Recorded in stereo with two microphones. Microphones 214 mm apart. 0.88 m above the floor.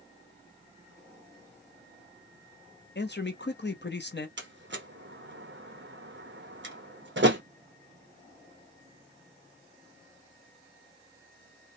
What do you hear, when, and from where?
3.0 s a man speaking: 55° left (ahead or behind), 0.6 m
4.4 s a door slam: 60° right (ahead or behind), 0.8 m